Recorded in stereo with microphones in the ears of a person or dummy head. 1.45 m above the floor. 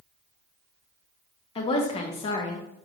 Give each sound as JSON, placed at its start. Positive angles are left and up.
{"t": 1.6, "sound": "a woman speaking", "side_deg": 30, "distance_m": 1.0}